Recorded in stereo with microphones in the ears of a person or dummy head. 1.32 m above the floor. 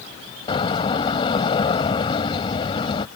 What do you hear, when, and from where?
0.5 s a door slam: 30° left (ahead or behind)